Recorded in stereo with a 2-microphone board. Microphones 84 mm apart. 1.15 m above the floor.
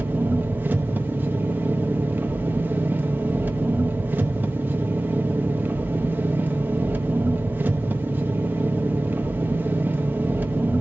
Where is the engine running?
20° right (ahead or behind), 1.0 m.